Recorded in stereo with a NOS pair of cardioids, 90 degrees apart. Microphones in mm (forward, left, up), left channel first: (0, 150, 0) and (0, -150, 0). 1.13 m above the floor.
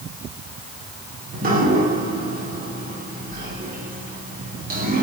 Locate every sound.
1.3 s dripping: 30° right, 2 m